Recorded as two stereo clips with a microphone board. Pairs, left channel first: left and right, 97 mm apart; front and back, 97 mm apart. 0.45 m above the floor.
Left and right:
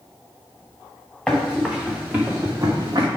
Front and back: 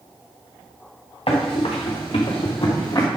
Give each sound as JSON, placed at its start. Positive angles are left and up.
{"t": 1.3, "sound": "running footsteps", "azimuth_deg": 5, "distance_m": 3.5}